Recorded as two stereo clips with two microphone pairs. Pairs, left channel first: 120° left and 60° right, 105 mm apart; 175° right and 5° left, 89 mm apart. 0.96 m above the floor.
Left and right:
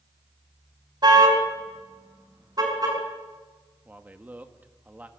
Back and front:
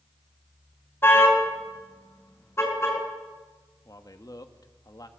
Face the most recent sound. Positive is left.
turn(degrees=-135)